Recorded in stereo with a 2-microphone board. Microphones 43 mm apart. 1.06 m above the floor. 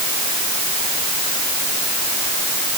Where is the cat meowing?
No cat meowing in this recording.